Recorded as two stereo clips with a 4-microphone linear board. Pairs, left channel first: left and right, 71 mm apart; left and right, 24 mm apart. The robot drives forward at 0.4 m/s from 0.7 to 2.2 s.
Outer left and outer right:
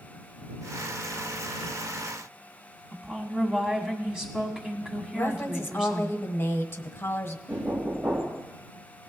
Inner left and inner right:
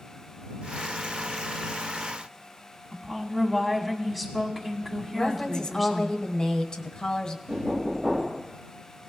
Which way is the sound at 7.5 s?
30° right (ahead or behind).